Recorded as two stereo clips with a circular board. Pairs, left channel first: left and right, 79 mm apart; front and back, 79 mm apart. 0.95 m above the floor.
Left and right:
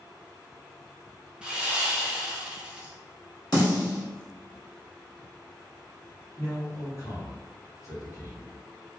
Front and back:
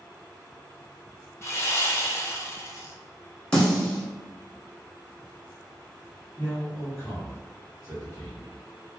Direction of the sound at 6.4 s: 50° left.